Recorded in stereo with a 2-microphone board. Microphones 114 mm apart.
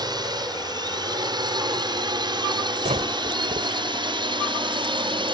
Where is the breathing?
75° right (ahead or behind).